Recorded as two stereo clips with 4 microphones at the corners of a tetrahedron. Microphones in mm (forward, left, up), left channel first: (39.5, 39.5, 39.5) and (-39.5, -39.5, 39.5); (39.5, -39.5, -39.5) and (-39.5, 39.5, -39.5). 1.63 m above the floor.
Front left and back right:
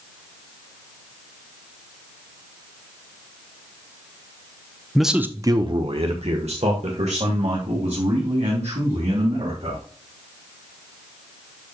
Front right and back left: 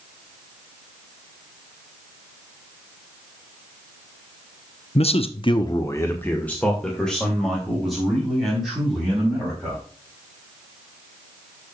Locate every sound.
5.0 s a man speaking: 40° right, 0.9 m; by 9.8 s 140° right, 5.5 m